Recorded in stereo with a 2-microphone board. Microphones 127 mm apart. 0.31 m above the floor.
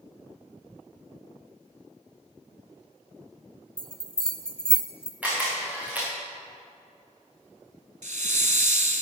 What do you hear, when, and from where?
3.8 s a bell: 5° left (ahead or behind), 1.0 m
5.2 s a camera shutter: 10° right (ahead or behind), 5 m
8.0 s a hiss: 80° right, 0.7 m